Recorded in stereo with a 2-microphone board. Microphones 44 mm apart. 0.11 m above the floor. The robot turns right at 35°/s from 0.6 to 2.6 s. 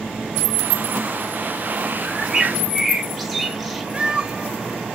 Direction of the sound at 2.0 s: 20° right (ahead or behind).